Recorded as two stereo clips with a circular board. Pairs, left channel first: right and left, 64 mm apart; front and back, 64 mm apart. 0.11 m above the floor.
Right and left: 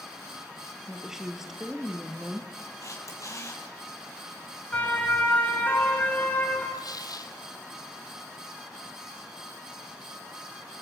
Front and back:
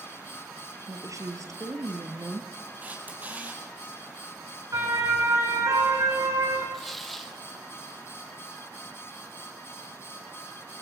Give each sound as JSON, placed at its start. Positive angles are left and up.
{"t": 0.9, "sound": "a woman speaking", "azimuth_deg": 175, "distance_m": 2.5}
{"t": 2.8, "sound": "a camera shutter", "azimuth_deg": -120, "distance_m": 4.0}
{"t": 4.7, "sound": "a siren", "azimuth_deg": -155, "distance_m": 5.0}
{"t": 6.7, "sound": "tearing paper", "azimuth_deg": -90, "distance_m": 1.4}